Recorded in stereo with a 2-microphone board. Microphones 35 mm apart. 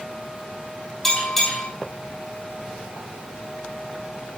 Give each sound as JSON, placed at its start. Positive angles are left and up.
{"t": 1.0, "sound": "a bell", "side_deg": 10, "distance_m": 6.5}